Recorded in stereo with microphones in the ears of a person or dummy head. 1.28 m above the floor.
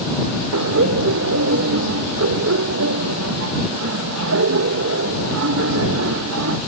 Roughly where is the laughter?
Right.